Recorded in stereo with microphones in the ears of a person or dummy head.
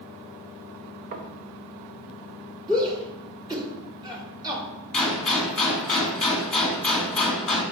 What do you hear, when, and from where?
1.1 s knocking: 45° right (ahead or behind), 1.0 m
2.7 s a shout: 20° right (ahead or behind), 2.5 m
4.9 s a gunshot: 5° left (ahead or behind), 2.5 m